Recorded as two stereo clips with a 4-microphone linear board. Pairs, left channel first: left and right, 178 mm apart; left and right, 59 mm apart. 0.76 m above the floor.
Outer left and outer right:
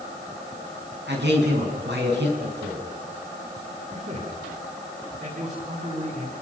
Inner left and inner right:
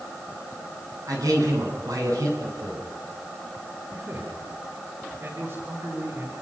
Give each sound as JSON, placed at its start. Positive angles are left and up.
{"t": 1.1, "sound": "a man speaking", "side_deg": -80, "distance_m": 8.0}
{"t": 3.9, "sound": "a man speaking", "side_deg": -45, "distance_m": 9.0}